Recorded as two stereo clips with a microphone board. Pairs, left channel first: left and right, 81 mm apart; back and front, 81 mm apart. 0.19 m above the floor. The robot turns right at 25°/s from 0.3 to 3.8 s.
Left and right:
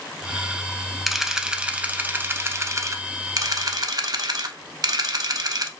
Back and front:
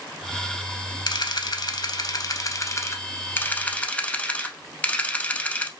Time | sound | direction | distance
1.1 | a camera shutter | straight behind | 0.7 m